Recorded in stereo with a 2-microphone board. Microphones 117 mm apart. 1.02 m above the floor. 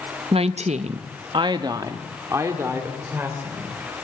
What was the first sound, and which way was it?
A woman speaking, 50° right (ahead or behind).